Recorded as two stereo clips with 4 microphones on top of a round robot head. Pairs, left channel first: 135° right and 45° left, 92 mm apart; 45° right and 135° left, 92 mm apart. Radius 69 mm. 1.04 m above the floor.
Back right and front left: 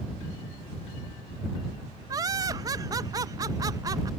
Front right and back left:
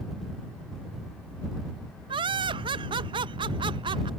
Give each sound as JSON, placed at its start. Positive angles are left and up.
{"t": 2.1, "sound": "laughter", "azimuth_deg": 100}